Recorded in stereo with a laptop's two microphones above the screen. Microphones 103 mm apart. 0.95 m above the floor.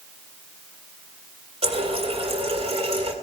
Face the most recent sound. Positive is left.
turn(degrees=-70)  # may be behind; listen again after turning